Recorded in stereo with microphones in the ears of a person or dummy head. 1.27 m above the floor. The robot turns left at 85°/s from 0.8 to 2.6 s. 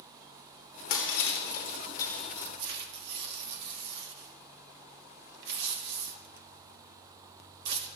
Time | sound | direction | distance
0.9 | breaking glass | 65° left (ahead or behind) | 2.5 m
2.6 | tearing paper | 60° right (ahead or behind) | 1.3 m